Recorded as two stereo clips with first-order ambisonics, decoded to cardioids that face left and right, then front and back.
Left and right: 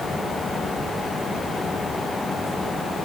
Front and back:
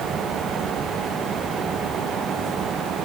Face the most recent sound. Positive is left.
No sound to turn to.